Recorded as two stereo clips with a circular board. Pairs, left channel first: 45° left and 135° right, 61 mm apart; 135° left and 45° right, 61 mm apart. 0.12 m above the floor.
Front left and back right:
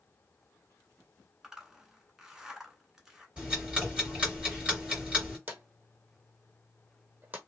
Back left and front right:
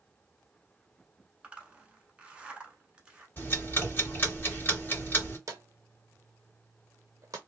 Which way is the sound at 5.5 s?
75° right.